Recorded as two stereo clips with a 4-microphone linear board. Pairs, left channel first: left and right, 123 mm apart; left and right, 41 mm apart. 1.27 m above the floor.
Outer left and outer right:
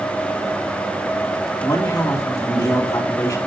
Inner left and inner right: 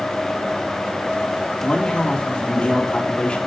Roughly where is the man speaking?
Left.